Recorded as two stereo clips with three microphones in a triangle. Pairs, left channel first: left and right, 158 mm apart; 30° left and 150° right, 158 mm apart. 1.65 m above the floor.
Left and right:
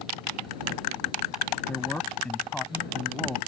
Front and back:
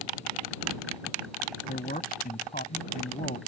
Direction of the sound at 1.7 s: 10° left.